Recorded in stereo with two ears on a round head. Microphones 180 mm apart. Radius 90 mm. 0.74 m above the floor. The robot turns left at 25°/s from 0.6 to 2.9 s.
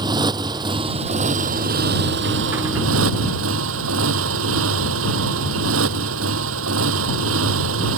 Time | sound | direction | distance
0.0 | a motorcycle | 25° right | ?